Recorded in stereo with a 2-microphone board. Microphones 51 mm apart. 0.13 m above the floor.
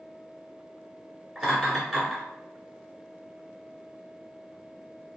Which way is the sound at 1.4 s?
Centre (ahead or behind).